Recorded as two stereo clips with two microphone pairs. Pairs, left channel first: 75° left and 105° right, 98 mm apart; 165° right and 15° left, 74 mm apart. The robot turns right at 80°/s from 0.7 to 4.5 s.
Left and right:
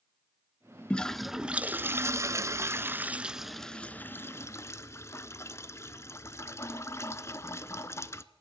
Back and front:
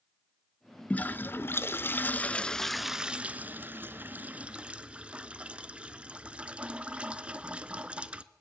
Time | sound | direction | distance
0.9 | a toilet flushing | 135° left | 0.7 m